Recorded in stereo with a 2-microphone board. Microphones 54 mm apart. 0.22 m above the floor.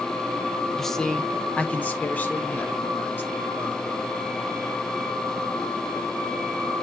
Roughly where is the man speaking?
Centre.